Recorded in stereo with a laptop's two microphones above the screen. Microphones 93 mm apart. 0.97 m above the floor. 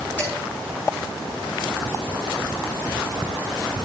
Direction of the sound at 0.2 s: 20° left (ahead or behind).